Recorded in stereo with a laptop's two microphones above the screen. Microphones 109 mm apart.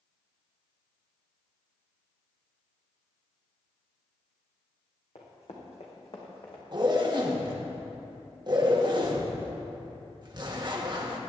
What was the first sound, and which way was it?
Running footsteps, 75° left (ahead or behind).